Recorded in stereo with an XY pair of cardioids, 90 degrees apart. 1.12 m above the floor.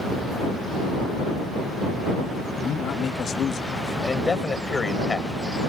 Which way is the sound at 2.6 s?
60° left.